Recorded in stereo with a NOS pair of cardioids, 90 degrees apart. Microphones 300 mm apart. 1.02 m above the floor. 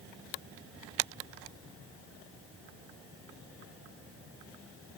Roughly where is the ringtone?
I don't hear a ringtone.